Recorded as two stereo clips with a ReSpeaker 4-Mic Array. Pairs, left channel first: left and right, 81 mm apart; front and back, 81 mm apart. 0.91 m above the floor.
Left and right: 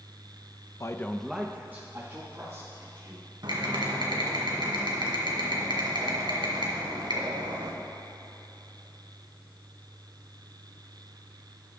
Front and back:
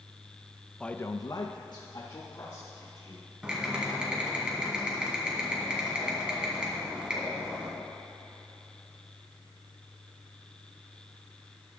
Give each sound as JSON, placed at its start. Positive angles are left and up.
{"t": 0.8, "sound": "a man speaking", "azimuth_deg": 80, "distance_m": 0.5}
{"t": 3.4, "sound": "typing on a keyboard", "azimuth_deg": -105, "distance_m": 2.0}